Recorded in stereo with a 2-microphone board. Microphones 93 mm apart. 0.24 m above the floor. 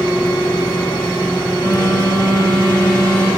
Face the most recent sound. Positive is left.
turn(degrees=50)  # may be behind; listen again after turning